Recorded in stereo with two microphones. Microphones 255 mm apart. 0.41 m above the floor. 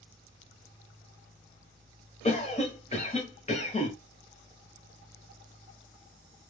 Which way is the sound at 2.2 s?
25° left (ahead or behind).